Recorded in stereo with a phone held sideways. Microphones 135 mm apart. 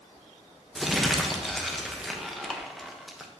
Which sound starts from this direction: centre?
Crumpling, at 0.8 s.